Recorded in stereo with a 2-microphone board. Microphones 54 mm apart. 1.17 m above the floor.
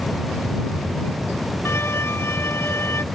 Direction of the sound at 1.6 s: 55° left (ahead or behind).